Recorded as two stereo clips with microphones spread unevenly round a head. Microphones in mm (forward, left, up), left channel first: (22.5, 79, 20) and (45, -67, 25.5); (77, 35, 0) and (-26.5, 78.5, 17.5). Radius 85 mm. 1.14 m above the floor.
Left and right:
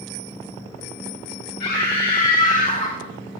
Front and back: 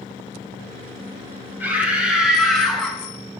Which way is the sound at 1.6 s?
85° left.